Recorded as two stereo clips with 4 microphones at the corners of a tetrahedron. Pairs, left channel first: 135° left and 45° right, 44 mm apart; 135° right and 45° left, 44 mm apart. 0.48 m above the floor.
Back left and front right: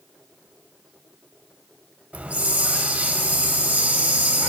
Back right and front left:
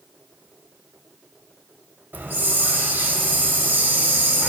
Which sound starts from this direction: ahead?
A hiss, at 2.1 s.